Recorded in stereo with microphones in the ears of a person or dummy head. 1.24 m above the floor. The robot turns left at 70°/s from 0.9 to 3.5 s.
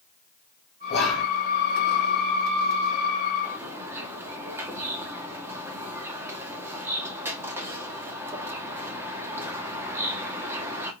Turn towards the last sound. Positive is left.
turn(degrees=-15)  # may be behind; listen again after turning